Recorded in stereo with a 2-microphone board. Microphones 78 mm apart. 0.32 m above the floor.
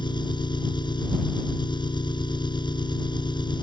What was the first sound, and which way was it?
An engine running, 70° left (ahead or behind).